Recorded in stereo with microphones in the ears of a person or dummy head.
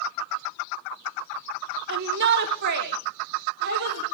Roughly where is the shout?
Right.